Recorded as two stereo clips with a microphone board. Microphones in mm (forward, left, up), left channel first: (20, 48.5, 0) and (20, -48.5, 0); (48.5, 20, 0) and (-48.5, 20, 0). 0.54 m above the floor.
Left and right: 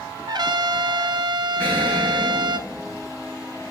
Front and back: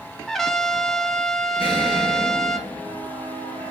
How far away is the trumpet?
About 0.7 m.